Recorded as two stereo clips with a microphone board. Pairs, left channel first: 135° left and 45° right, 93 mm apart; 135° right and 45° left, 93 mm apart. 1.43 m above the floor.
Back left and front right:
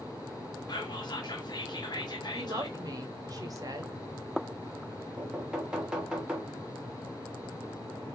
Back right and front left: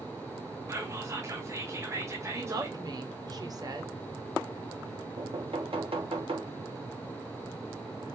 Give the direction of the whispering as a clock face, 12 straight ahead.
9 o'clock.